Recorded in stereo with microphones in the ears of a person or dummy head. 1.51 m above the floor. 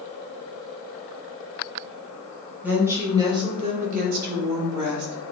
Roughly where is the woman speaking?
Centre.